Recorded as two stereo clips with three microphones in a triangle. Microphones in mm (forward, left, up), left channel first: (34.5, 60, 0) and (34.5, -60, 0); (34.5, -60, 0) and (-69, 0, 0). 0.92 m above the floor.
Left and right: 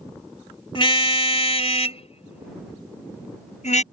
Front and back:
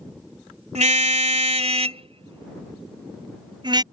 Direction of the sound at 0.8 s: 135° left.